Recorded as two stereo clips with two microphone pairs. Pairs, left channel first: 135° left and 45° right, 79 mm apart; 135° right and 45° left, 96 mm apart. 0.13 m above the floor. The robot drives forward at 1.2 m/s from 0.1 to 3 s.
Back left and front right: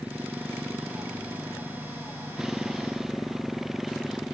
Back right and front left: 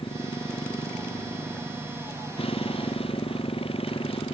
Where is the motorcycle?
120° right; by 4.3 s 130° right.